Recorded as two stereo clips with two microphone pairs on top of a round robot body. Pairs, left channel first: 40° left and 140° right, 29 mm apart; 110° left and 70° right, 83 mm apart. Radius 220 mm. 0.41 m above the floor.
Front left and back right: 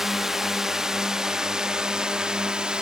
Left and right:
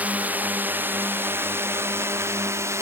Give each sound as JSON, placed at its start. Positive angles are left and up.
{"t": 0.0, "sound": "a drone", "azimuth_deg": -70}